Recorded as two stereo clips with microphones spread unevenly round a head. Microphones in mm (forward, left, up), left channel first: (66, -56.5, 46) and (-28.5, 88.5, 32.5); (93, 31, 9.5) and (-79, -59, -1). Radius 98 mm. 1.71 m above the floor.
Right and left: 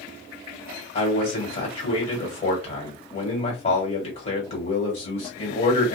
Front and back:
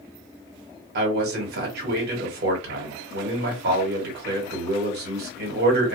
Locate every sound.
0.9 s a man speaking: 115° right, 1.5 m